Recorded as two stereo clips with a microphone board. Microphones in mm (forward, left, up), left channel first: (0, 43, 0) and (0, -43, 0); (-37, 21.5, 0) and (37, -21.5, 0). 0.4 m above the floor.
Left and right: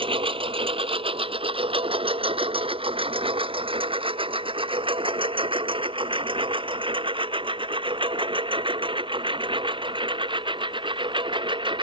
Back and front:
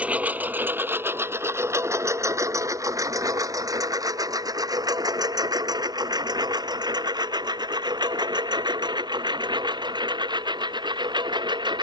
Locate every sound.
0.0 s a lawn mower: 105° right; by 11.8 s 65° right